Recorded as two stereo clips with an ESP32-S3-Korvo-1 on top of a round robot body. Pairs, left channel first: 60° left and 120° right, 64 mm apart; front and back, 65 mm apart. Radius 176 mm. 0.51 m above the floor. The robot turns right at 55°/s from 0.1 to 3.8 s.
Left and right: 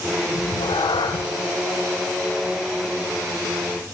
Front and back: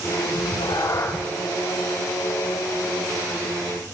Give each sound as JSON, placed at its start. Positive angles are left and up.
{"t": 0.3, "sound": "a cat meowing", "azimuth_deg": 20, "distance_m": 0.6}